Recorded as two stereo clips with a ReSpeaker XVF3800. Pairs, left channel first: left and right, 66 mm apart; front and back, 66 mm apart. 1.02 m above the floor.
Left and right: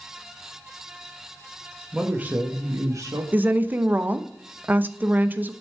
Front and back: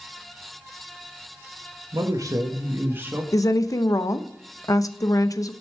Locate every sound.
1.9 s a man speaking: 170° right, 1.1 m; by 3.2 s 115° right, 1.3 m
3.3 s a woman speaking: 25° right, 0.6 m